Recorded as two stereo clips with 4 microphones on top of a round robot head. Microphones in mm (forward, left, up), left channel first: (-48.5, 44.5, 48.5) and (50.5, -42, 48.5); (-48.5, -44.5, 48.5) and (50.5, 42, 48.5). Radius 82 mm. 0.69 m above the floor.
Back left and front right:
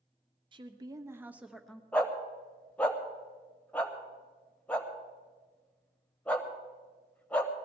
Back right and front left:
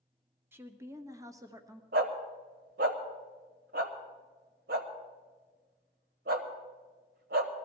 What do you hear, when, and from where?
0.5 s a woman speaking: 20° right, 1.2 m; by 1.8 s 60° left, 1.1 m
1.9 s a dog barking: 60° left, 1.1 m